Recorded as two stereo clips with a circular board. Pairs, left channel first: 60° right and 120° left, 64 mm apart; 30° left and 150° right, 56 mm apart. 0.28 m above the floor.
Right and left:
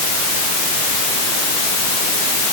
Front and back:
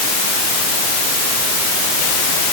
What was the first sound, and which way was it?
Only background noise.